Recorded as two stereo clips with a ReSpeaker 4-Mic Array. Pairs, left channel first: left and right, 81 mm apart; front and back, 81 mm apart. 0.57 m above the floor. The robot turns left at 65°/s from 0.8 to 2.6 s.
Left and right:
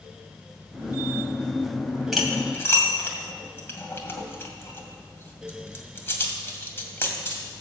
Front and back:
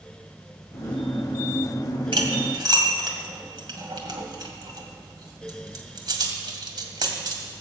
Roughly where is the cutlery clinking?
Behind.